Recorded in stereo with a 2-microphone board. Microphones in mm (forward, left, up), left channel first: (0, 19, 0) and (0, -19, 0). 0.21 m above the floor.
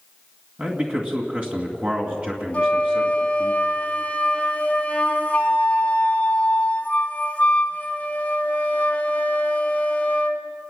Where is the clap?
No clap in this recording.